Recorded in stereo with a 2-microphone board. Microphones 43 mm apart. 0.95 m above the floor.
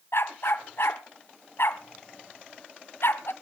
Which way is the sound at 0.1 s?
75° left (ahead or behind).